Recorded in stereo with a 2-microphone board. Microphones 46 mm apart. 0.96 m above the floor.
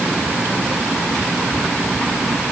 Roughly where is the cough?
I don't hear a cough.